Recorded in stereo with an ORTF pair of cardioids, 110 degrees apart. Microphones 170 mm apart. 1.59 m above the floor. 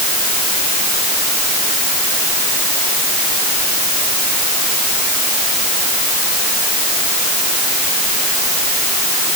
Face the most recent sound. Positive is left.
No sound to turn to.